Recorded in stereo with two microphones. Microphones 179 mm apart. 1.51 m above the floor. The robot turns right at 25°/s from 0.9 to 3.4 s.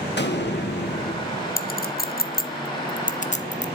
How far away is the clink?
About 0.8 m.